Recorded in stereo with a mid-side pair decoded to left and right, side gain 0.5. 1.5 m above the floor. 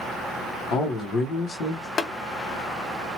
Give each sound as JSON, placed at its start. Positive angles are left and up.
{"t": 0.7, "sound": "a man speaking", "azimuth_deg": 65, "distance_m": 1.0}
{"t": 2.0, "sound": "tapping", "azimuth_deg": 40, "distance_m": 0.7}